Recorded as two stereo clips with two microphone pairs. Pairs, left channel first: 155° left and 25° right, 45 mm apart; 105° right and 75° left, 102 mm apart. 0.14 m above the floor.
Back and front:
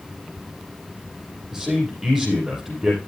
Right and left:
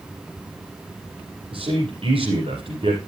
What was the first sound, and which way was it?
A man speaking, 55° left.